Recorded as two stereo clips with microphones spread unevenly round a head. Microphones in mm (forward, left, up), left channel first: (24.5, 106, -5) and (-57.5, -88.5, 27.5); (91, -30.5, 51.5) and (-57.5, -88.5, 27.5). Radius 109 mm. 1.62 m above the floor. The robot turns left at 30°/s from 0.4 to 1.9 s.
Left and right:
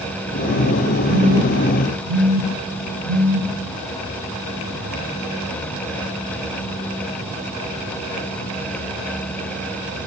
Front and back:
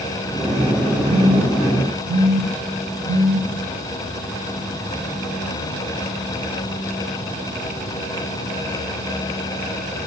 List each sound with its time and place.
1.1 s a phone buzzing: 90° left, 4.5 m; by 3.5 s 65° left, 4.5 m